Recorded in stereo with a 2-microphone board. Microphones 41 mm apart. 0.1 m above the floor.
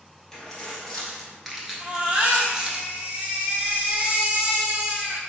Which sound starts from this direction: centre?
Keys jangling, at 0.3 s.